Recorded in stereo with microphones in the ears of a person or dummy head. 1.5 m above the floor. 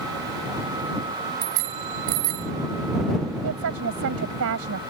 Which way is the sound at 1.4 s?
85° right.